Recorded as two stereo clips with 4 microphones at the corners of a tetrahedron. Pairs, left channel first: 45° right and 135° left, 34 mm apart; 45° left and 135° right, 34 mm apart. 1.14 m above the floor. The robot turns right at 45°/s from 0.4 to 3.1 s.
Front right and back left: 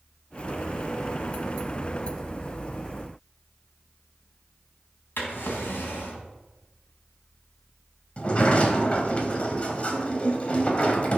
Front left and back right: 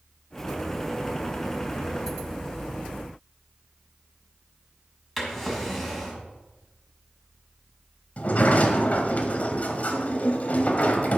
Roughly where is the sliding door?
Ahead.